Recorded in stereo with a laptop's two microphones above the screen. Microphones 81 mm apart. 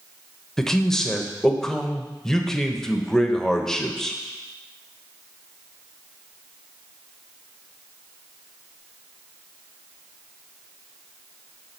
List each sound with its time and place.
0.6 s a man speaking: 5° left (ahead or behind), 0.8 m